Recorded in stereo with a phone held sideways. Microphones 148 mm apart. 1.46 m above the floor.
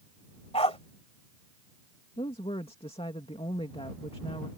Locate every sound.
0.5 s a dog barking: 40° left (ahead or behind)
2.2 s a woman speaking: 40° left (ahead or behind)